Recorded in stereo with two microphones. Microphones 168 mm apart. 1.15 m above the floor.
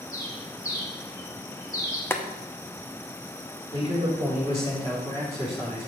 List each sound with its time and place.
0.1 s a bird: 20° left (ahead or behind), 1.9 m
2.1 s boiling: 15° left (ahead or behind), 0.7 m
3.7 s a man speaking: 30° left (ahead or behind), 3.5 m